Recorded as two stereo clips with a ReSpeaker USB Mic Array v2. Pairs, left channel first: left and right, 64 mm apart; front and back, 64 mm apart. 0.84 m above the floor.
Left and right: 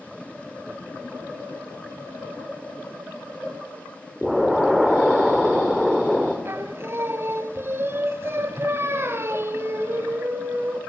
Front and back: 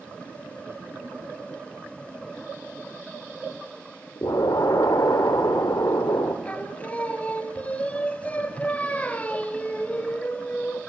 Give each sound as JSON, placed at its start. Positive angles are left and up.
{"t": 4.2, "sound": "an explosion", "azimuth_deg": 0, "distance_m": 1.9}
{"t": 6.5, "sound": "singing", "azimuth_deg": -55, "distance_m": 0.9}